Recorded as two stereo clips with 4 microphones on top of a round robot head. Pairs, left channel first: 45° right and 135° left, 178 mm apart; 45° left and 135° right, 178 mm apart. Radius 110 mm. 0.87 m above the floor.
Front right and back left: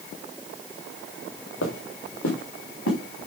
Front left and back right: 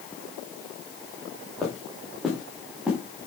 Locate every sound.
1.6 s footsteps: 40° right, 4.5 m; by 3.0 s 50° right, 5 m